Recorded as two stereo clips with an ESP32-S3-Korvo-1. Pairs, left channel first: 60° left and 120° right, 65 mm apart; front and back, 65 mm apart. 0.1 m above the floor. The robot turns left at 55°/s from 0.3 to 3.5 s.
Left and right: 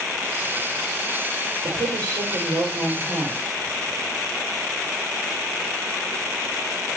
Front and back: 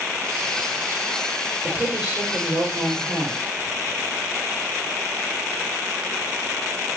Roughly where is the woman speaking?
Right.